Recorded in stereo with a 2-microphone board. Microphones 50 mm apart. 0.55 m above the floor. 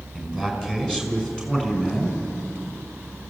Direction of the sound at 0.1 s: 15° left (ahead or behind).